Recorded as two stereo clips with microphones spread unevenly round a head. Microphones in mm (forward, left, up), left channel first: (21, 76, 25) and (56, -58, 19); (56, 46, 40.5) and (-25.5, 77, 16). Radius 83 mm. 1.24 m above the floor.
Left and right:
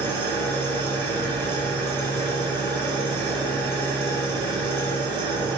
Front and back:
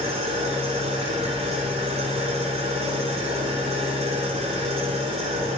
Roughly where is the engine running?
Behind.